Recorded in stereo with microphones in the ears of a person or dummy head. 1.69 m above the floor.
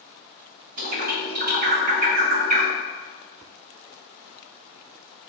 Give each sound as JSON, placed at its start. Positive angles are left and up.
{"t": 0.8, "sound": "a bird", "side_deg": -50, "distance_m": 0.7}